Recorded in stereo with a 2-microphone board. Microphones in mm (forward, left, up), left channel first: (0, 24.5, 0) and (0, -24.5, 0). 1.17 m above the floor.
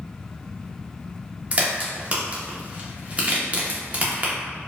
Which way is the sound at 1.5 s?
30° right (ahead or behind).